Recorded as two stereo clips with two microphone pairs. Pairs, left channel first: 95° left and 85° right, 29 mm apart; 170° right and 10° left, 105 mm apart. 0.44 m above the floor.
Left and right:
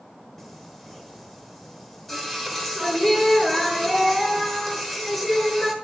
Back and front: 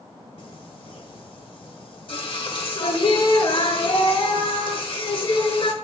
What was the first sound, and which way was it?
Singing, straight behind.